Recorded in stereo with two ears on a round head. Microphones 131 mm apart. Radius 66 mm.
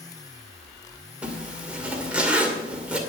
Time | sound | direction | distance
1.2 | a zipper | 10° right (ahead or behind) | 2 m